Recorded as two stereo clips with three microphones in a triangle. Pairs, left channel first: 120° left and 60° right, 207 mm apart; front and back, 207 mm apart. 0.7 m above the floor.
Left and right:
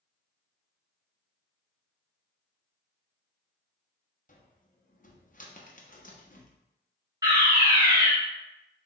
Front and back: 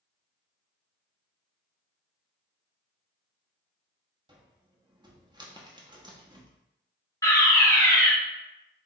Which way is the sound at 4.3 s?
120° left.